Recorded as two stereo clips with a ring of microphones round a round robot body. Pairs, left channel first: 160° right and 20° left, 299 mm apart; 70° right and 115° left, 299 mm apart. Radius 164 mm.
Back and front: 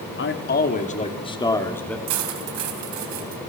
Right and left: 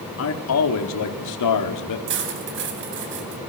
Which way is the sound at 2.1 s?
60° left.